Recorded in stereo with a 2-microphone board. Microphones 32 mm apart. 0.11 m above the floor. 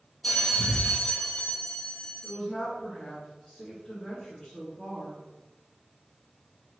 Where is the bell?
20° left (ahead or behind), 0.6 m.